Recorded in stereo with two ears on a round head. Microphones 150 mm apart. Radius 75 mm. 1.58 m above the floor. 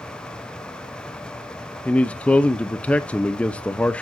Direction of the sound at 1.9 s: 5° left (ahead or behind).